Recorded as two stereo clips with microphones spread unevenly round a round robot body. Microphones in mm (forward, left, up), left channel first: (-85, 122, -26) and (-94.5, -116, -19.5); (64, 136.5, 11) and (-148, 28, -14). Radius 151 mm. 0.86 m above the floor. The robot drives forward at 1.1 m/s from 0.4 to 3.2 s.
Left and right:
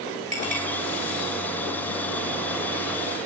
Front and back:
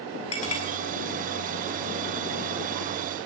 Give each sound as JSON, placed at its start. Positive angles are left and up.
{"t": 0.3, "sound": "a clink", "azimuth_deg": -25, "distance_m": 2.5}